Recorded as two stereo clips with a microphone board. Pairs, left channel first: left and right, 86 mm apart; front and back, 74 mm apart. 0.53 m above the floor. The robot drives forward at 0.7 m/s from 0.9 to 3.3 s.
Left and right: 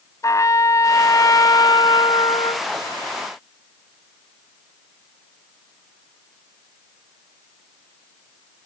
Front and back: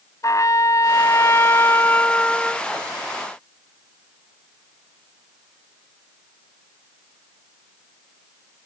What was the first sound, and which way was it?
A trumpet, 40° left.